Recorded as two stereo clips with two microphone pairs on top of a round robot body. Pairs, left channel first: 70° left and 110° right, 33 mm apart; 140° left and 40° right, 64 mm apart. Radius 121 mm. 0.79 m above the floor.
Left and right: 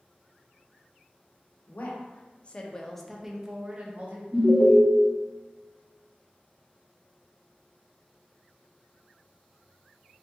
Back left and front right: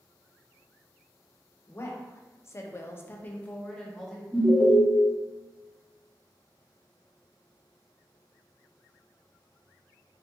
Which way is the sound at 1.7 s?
100° left.